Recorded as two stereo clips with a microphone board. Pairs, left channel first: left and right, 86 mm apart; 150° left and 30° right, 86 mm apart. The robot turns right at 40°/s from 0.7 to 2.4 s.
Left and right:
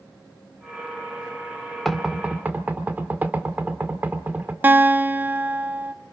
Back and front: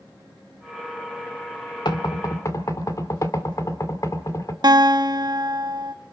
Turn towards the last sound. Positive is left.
turn(degrees=-30)